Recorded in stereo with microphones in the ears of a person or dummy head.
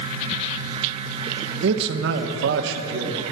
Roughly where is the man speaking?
Right.